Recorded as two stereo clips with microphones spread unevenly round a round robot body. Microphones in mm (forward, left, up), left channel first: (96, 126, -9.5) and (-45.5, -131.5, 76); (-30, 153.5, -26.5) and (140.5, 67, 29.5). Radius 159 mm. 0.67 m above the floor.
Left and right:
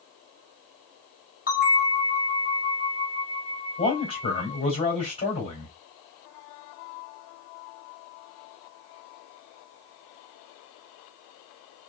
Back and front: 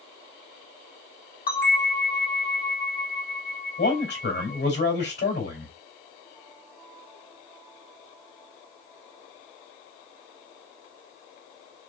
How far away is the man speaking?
About 3.5 m.